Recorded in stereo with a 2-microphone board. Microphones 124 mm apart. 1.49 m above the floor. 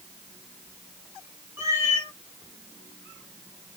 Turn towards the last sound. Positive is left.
turn(degrees=-20)  # may be behind; listen again after turning